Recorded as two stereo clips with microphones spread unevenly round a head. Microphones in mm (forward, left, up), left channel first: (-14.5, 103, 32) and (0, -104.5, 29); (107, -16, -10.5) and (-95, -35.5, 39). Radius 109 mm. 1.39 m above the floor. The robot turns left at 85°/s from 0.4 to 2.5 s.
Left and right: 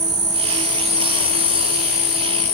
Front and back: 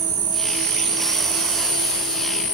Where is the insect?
135° right, 0.9 m; by 2.5 s 50° left, 0.9 m.